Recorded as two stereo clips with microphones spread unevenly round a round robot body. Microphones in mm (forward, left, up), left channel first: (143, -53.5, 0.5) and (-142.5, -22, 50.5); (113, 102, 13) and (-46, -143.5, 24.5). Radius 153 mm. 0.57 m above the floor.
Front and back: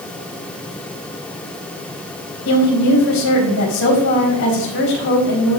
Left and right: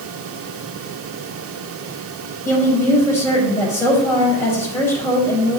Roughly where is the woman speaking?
Ahead right.